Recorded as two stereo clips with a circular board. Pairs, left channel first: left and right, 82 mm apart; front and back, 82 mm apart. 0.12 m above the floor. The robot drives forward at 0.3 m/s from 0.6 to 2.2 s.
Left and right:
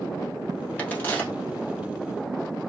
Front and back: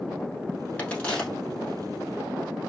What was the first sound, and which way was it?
A crack, 45° left.